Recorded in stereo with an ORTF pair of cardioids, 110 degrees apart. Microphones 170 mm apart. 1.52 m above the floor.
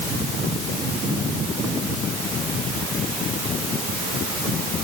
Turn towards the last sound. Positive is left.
No sound to turn to.